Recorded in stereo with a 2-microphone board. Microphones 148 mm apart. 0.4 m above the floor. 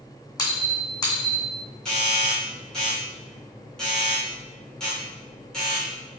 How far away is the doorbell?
About 1.4 m.